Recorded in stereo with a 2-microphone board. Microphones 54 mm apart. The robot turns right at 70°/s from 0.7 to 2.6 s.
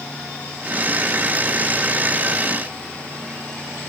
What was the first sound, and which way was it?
Only background noise.